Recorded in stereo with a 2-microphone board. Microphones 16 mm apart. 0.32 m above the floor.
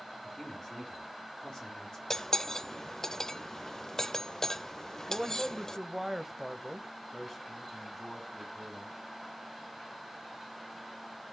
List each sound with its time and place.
0.2 s a man speaking: 35° left (ahead or behind), 5 m
2.1 s cutlery clinking: 30° left (ahead or behind), 0.6 m
5.1 s a man speaking: 10° right (ahead or behind), 1.3 m
7.1 s a man speaking: 15° left (ahead or behind), 3 m